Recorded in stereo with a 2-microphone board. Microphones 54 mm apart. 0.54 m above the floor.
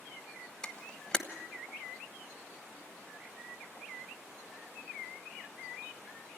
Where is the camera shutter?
10° left (ahead or behind), 1.1 m.